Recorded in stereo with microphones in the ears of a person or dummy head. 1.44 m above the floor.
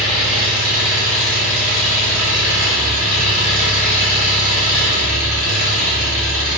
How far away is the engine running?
About 0.9 m.